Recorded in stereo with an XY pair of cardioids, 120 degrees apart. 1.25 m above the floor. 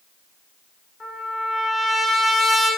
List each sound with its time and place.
1.0 s a trumpet: 20° left, 2.5 m